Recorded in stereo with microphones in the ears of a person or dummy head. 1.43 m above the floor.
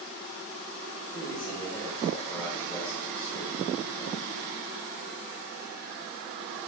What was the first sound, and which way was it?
A man speaking, 10° left (ahead or behind).